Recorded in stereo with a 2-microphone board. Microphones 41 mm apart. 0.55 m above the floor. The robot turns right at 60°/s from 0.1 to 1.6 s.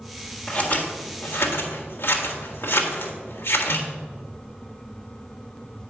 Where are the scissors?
30° left (ahead or behind), 1.5 m; by 3.9 s 60° left (ahead or behind), 1.5 m.